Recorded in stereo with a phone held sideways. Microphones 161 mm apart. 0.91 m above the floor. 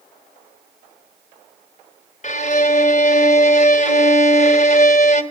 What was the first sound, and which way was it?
A violin, 45° left (ahead or behind).